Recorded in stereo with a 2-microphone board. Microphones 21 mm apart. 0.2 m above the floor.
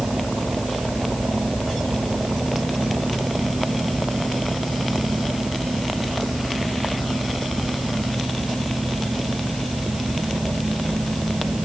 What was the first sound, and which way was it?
Only background noise.